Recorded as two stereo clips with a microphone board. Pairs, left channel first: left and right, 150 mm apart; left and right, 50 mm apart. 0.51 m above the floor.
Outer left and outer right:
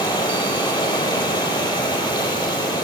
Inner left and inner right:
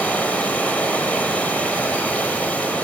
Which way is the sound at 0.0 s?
30° left (ahead or behind).